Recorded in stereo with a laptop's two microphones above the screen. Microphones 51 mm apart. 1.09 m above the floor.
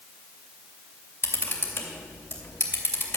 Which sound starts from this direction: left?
A camera shutter, at 1.2 s.